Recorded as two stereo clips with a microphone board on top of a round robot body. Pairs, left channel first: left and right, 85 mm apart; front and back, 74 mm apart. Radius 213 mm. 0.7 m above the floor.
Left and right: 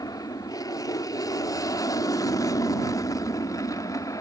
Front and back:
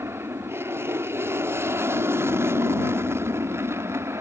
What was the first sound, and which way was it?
An aircraft, 130° left.